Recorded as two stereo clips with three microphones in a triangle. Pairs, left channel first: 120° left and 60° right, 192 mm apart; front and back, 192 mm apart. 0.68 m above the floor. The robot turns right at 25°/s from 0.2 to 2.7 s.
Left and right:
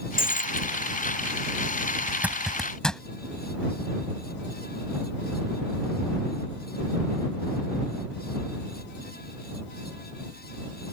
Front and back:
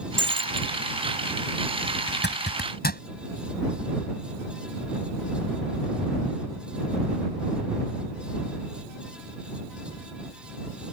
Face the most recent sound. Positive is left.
turn(degrees=35)